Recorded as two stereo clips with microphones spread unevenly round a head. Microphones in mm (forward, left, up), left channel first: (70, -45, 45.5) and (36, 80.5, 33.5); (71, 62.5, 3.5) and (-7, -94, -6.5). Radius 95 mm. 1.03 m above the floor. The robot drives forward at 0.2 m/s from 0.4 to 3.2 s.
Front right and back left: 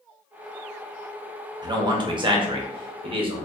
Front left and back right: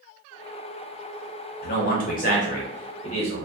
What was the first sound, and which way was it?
A man speaking, 70° left.